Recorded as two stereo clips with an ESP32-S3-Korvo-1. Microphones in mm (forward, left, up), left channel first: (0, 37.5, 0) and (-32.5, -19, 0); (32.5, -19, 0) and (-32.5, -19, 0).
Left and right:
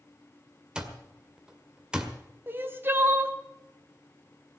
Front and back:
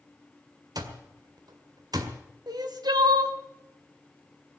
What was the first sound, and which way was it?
An alarm clock, 160° left.